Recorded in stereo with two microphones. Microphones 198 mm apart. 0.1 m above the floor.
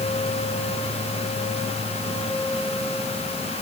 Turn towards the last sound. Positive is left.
No sound to turn to.